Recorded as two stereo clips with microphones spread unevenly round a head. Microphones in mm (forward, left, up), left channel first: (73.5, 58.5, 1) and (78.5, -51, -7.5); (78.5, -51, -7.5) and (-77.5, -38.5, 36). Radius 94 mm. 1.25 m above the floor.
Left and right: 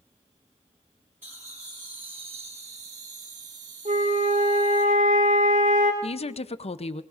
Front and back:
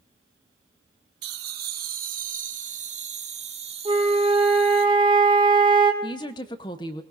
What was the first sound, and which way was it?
Laughter, 170° right.